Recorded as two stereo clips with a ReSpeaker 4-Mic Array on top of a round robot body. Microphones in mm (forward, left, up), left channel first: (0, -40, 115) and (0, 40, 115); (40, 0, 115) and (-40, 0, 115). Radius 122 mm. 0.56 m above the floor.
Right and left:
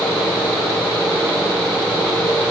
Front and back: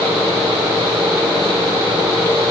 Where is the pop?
I don't hear a pop.